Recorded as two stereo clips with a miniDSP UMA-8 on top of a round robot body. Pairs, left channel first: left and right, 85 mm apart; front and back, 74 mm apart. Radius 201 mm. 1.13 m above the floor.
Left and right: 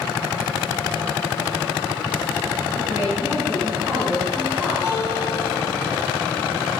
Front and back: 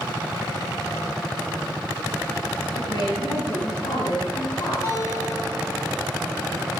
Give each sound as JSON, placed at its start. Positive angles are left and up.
{"t": 2.7, "sound": "a woman speaking", "azimuth_deg": -15, "distance_m": 10.0}
{"t": 4.8, "sound": "a guitar", "azimuth_deg": 30, "distance_m": 10.0}